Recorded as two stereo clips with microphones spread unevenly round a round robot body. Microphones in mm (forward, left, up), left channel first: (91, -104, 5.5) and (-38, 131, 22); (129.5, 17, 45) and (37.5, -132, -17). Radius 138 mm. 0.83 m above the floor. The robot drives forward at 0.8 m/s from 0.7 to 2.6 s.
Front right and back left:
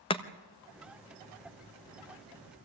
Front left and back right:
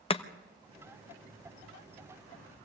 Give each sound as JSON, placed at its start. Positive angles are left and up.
{"t": 0.1, "sound": "chopping", "azimuth_deg": -10, "distance_m": 1.1}